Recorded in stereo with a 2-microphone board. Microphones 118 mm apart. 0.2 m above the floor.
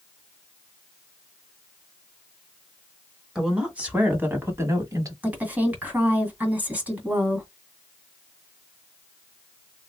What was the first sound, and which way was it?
A woman speaking, 5° right (ahead or behind).